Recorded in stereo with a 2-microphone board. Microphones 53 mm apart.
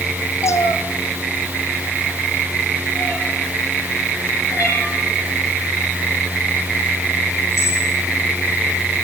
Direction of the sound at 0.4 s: 70° left (ahead or behind).